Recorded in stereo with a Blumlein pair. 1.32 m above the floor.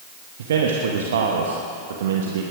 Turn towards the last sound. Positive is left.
turn(degrees=-60)